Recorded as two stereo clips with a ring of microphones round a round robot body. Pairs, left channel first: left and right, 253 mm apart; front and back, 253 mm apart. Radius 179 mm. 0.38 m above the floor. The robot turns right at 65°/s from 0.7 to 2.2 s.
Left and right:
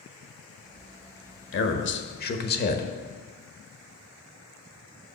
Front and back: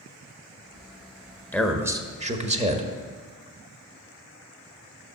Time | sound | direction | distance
1.5 | a man speaking | 80° left | 1.2 m